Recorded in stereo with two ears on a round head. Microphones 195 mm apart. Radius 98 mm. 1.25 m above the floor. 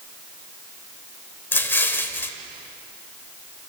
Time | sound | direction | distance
1.5 | an explosion | 10° left (ahead or behind) | 1.4 m